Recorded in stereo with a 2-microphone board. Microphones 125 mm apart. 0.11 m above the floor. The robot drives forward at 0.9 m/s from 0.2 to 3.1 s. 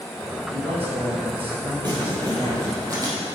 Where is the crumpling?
35° right (ahead or behind), 3.5 m; by 3.1 s 30° right (ahead or behind), 4.5 m.